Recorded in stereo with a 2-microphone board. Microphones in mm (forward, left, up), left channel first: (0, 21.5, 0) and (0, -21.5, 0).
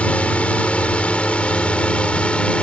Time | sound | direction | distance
0.0 | a drone | 30° left (ahead or behind) | ?